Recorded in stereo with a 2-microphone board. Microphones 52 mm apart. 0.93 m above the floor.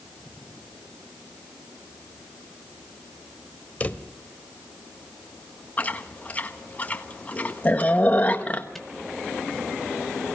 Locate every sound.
3.8 s a drawer: 30° left (ahead or behind), 1.0 m
5.8 s chewing: 30° left (ahead or behind), 1.3 m
8.8 s a camera shutter: 5° left (ahead or behind), 2 m